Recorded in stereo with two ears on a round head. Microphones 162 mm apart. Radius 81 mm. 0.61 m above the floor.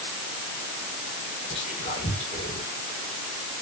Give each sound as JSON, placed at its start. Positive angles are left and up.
{"t": 1.5, "sound": "whispering", "side_deg": 35, "distance_m": 2.0}